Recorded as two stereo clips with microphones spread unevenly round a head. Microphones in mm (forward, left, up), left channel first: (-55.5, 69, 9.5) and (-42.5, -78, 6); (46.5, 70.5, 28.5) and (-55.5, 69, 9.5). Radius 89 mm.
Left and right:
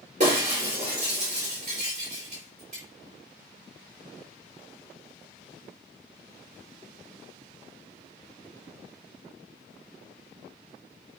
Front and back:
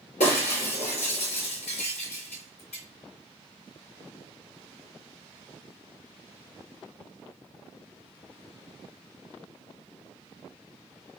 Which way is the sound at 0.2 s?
30° right.